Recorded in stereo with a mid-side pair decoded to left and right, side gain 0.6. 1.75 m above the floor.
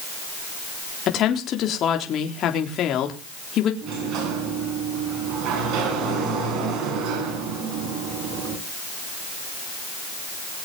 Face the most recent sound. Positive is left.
turn(degrees=-60)